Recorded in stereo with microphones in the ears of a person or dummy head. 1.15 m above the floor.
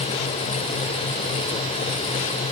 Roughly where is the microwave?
I don't hear a microwave.